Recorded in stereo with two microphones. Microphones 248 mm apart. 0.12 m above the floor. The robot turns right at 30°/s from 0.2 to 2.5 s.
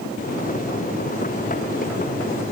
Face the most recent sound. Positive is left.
No sound to turn to.